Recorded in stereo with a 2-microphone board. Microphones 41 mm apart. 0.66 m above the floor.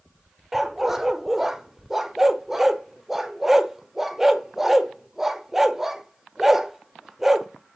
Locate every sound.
0.5 s a dog barking: 10° right (ahead or behind), 0.7 m